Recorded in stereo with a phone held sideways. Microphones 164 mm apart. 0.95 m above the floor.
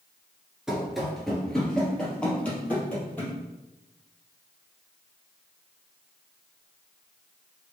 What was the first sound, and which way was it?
Running footsteps, 5° right (ahead or behind).